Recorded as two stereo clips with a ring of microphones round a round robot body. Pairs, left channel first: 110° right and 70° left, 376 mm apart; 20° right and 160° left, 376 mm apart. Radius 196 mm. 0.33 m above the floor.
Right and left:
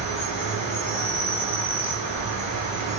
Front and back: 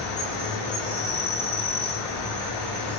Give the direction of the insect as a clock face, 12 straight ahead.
2 o'clock.